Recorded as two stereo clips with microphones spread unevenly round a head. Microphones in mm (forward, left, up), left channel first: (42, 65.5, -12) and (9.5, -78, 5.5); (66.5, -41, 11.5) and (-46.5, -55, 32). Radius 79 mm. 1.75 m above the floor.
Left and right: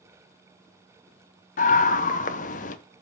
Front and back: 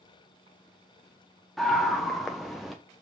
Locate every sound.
1.6 s a scream: 105° left, 0.8 m